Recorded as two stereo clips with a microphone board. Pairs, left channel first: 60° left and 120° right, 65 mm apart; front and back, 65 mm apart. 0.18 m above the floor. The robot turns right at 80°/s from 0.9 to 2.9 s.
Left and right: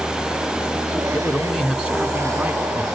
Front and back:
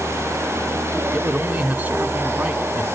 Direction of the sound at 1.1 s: 125° left.